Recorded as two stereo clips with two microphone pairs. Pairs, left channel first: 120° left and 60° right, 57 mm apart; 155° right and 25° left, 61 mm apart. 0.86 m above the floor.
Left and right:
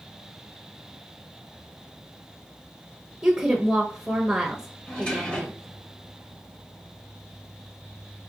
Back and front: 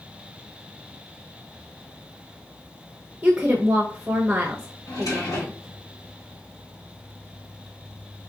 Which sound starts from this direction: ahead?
A woman speaking, at 3.2 s.